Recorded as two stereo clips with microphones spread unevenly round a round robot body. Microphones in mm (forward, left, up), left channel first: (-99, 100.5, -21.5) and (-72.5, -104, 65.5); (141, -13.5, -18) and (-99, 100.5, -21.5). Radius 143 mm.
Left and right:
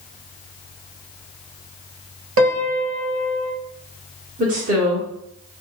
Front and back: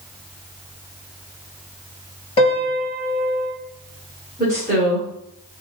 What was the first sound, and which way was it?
A piano, 100° right.